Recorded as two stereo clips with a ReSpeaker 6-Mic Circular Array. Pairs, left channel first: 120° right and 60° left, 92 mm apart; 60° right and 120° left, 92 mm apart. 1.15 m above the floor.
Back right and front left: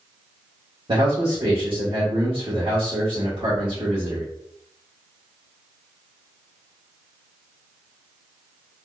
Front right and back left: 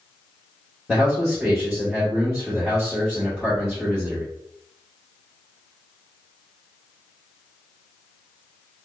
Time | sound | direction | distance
0.9 | a man speaking | 35° left | 1.3 m